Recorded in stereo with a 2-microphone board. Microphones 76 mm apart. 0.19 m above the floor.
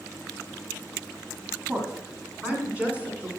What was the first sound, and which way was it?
A woman speaking, 30° right (ahead or behind).